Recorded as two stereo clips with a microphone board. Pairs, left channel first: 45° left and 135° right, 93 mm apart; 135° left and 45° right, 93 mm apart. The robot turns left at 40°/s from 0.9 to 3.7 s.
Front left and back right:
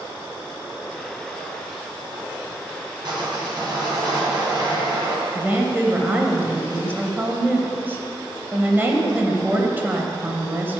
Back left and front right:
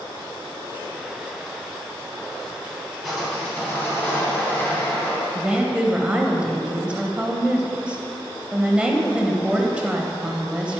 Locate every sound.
3.0 s sawing: 135° right, 2.5 m; by 5.2 s 160° right, 2.5 m
5.3 s a woman speaking: 105° right, 0.9 m